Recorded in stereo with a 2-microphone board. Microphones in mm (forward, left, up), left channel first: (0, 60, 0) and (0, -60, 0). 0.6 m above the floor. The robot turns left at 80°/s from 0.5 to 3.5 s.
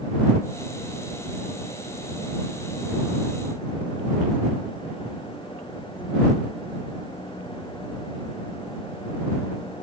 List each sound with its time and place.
Only background noise.